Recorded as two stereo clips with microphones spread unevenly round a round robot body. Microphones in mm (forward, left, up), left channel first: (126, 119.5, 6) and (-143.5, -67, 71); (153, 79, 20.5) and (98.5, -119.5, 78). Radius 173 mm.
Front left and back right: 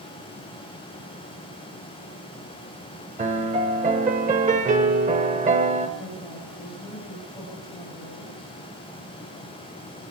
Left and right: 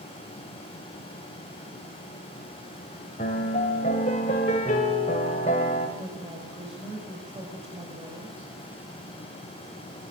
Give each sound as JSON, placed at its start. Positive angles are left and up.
{"t": 3.2, "sound": "a piano", "azimuth_deg": 150, "distance_m": 1.6}
{"t": 6.0, "sound": "a woman speaking", "azimuth_deg": -45, "distance_m": 6.0}